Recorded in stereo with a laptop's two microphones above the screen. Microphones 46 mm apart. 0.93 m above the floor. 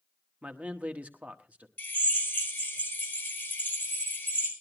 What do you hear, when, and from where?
0.4 s a man speaking: 35° right (ahead or behind), 1.1 m
1.8 s a drill: 40° left (ahead or behind), 4.5 m